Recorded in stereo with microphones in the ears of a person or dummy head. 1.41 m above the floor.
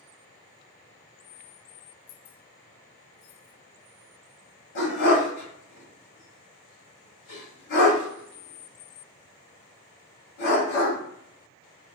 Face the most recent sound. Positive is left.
turn(degrees=60)  # may be behind; listen again after turning